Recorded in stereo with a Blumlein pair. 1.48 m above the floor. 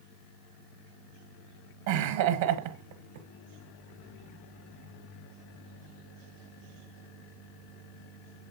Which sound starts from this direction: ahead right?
Laughter, at 1.9 s.